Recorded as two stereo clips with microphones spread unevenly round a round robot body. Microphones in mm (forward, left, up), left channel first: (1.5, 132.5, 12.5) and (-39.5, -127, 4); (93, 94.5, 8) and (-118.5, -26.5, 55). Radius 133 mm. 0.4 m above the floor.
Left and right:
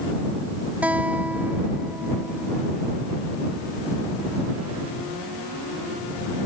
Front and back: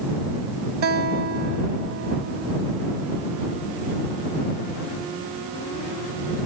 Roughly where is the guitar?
Behind.